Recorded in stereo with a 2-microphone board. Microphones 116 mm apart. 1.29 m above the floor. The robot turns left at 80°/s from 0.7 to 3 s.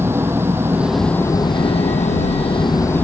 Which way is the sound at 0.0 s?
160° right.